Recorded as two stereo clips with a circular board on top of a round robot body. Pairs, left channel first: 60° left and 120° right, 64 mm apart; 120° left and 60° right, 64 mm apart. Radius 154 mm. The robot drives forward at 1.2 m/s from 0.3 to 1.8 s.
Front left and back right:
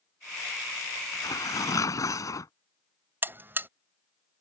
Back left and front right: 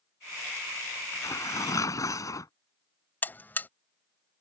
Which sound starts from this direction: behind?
A buzzer, at 3.2 s.